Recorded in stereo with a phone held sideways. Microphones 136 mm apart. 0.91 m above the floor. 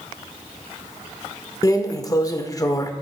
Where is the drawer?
25° left (ahead or behind), 0.6 m.